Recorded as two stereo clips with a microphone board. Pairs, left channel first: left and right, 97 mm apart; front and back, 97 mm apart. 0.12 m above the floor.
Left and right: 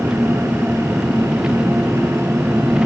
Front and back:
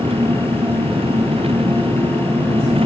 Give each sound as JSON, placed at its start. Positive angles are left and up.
{"t": 0.0, "sound": "an engine running", "azimuth_deg": -170}